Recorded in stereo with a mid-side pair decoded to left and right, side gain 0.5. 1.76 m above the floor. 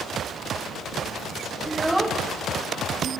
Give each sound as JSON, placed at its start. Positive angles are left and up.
{"t": 1.6, "sound": "a child speaking", "azimuth_deg": -10, "distance_m": 2.5}